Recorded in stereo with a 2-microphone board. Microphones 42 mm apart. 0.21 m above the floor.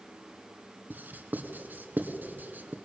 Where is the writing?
50° right (ahead or behind), 1.9 m.